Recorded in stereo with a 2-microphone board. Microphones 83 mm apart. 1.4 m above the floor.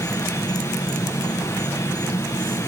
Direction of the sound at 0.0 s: 50° left (ahead or behind).